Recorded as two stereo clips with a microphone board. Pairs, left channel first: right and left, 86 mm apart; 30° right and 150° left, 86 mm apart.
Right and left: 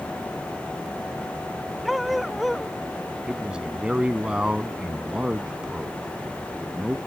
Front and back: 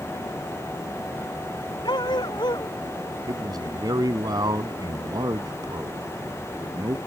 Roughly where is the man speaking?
Behind.